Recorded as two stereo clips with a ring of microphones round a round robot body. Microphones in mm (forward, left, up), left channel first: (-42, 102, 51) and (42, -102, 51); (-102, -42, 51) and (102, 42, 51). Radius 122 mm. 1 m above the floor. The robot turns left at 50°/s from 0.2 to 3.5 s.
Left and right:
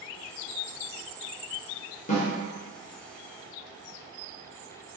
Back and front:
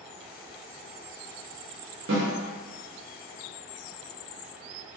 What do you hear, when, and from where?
2.1 s a snare drum: 55° left, 1.0 m; by 2.3 s 45° left, 1.0 m